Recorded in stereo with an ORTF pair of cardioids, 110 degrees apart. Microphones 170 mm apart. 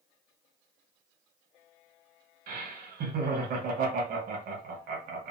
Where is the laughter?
55° right, 1.3 m.